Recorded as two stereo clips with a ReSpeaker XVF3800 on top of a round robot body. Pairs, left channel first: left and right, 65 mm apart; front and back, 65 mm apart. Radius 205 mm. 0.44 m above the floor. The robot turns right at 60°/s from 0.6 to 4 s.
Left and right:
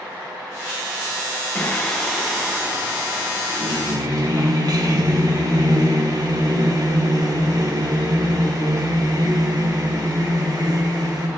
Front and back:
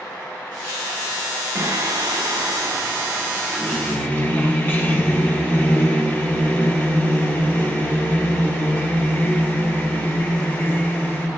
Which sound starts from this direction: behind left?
Singing, at 1.6 s.